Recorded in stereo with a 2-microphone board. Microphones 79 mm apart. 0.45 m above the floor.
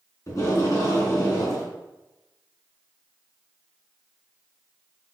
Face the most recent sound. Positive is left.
turn(degrees=40)  # may be behind; listen again after turning